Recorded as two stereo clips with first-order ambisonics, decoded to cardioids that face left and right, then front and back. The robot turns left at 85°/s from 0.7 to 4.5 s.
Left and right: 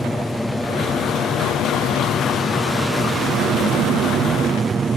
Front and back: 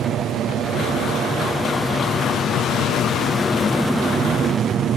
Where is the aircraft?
Straight behind; by 5.0 s 145° right.